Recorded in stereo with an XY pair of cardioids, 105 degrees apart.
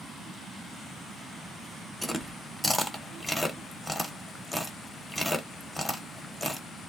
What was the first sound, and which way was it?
Chewing, 15° left.